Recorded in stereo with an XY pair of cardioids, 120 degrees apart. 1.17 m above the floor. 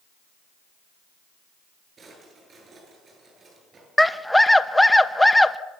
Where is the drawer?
35° right, 10 m.